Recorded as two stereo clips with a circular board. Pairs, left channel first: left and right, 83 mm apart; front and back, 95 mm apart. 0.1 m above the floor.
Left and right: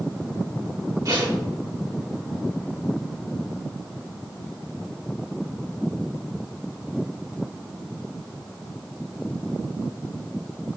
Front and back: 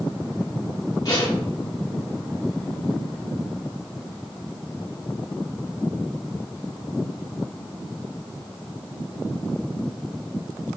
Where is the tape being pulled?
40° right, 4 m.